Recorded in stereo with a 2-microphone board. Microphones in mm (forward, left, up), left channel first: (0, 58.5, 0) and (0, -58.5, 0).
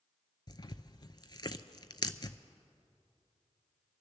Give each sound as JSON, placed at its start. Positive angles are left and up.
{"t": 0.5, "sound": "tearing paper", "side_deg": 40, "distance_m": 0.5}